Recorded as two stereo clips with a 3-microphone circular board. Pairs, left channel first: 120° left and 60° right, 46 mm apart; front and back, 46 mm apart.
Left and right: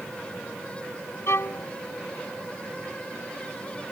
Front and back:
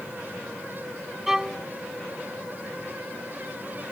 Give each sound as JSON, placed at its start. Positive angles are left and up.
{"t": 1.3, "sound": "a violin", "azimuth_deg": 100}